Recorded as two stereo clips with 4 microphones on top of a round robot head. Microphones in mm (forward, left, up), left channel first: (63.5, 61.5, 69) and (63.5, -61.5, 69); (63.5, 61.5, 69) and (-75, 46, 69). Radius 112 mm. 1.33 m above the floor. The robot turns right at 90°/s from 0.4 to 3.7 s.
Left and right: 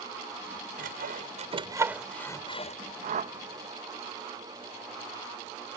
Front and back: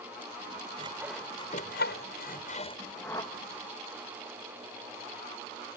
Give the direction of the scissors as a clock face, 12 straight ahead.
I don't hear scissors.